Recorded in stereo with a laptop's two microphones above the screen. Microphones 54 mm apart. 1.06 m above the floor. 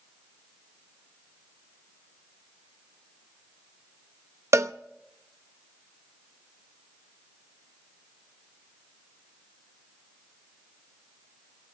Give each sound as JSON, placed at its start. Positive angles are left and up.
{"t": 4.5, "sound": "a cowbell", "side_deg": -65, "distance_m": 0.7}